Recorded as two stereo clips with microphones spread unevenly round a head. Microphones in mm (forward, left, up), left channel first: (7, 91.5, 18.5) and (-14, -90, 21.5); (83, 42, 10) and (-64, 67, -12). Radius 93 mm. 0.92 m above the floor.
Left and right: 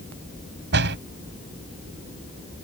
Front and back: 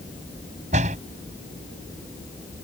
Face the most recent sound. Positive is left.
turn(degrees=-130)